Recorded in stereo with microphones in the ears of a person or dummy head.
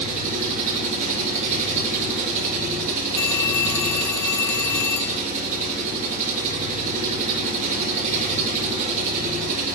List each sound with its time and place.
0.0 s an engine running: 35° right (ahead or behind), 4 m
3.2 s a phone ringing: 20° left (ahead or behind), 1.0 m